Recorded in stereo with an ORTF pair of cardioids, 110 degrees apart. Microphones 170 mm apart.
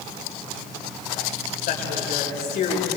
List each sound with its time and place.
1.6 s a woman speaking: 65° left, 8 m; by 2.9 s 75° left, 7 m